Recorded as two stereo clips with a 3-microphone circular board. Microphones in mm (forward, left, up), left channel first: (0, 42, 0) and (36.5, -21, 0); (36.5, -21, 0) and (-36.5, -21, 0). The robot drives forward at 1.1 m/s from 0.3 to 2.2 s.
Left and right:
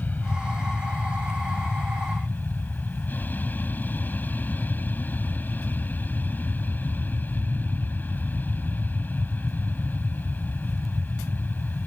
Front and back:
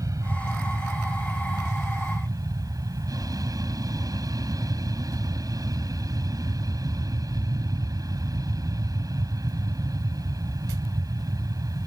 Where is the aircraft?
Straight behind.